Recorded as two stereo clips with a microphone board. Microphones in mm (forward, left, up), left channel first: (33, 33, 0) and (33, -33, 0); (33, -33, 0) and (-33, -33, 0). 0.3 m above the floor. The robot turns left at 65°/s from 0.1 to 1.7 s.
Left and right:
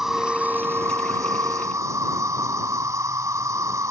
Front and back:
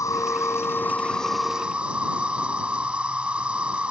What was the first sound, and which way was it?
An insect, 5° right.